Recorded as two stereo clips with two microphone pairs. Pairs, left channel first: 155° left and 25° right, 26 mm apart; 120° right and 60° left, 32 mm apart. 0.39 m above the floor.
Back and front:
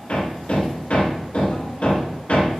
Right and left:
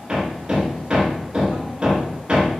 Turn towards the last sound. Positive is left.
turn(degrees=125)